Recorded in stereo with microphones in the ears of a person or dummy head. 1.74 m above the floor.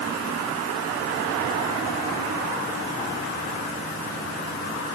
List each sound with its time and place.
Only background noise.